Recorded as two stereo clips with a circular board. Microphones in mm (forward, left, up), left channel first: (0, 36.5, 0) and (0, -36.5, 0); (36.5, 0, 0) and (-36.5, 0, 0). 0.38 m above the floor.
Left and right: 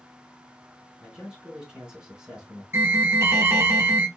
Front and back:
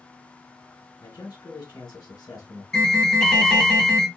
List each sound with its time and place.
1.0 s a man speaking: 15° right, 2 m
2.7 s an alarm: 75° right, 1.4 m